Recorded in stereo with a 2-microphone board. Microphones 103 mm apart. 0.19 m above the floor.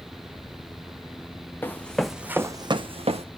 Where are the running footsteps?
20° left (ahead or behind), 0.8 m; by 3.2 s 75° right (ahead or behind), 0.7 m.